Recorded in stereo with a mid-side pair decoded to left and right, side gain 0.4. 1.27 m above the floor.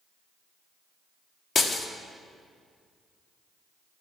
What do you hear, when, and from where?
1.6 s breaking glass: 45° left, 1.6 m